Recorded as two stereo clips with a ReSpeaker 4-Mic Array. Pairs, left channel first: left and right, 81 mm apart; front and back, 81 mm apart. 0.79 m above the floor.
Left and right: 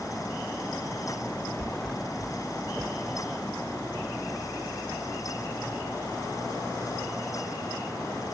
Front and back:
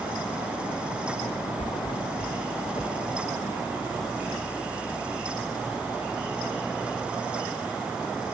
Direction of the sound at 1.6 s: Straight ahead.